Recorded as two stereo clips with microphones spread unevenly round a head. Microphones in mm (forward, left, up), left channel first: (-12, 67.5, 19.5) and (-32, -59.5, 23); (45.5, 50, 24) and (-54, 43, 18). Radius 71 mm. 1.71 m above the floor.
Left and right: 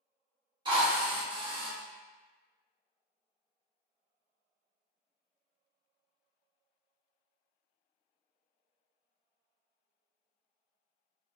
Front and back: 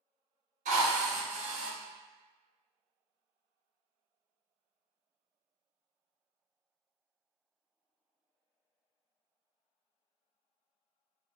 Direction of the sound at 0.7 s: 155° right.